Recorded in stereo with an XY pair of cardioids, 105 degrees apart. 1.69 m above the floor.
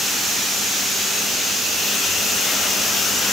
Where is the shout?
No shout in this recording.